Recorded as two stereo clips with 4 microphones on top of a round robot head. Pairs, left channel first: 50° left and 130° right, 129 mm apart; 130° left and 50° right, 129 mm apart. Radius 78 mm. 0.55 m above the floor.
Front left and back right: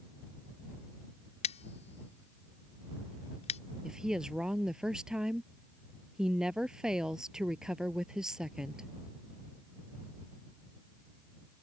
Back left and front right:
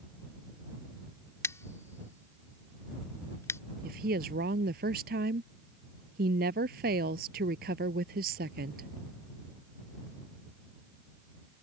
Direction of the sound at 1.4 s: 60° left.